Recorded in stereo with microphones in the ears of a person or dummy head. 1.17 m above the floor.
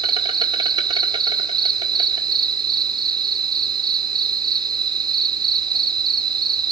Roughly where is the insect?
Right.